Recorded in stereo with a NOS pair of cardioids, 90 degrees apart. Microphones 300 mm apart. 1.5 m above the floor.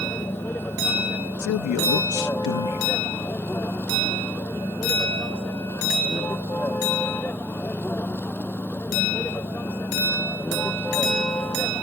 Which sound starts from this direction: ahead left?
A man speaking, at 1.4 s.